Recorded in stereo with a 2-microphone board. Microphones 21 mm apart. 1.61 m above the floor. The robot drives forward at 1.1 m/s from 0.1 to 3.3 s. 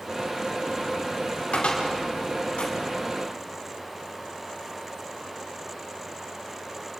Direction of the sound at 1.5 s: 70° left (ahead or behind).